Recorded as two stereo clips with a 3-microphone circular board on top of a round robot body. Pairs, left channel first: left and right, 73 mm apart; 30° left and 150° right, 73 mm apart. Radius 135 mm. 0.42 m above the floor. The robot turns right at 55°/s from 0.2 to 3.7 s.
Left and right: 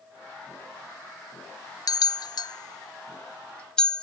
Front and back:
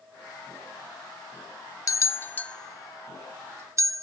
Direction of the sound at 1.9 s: 65° left.